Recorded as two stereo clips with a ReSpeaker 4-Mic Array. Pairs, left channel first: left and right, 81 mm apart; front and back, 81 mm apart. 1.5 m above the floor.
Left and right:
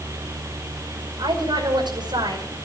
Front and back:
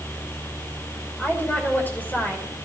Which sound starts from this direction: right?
A woman speaking, at 1.2 s.